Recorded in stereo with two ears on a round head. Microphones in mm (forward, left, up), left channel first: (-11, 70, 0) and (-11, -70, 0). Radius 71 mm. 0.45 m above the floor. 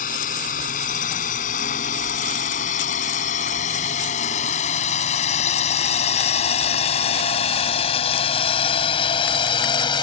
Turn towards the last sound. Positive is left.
turn(degrees=30)  # may be behind; listen again after turning